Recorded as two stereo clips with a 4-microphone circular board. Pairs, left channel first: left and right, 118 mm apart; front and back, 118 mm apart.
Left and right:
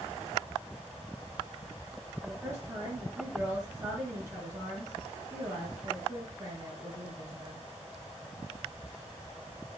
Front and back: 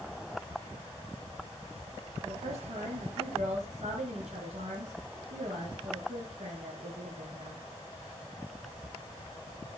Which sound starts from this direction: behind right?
A woman speaking, at 2.2 s.